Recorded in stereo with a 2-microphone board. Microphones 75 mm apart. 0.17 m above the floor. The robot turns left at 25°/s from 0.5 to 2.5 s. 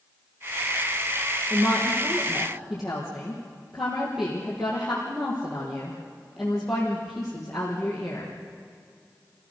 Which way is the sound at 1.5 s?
30° right (ahead or behind).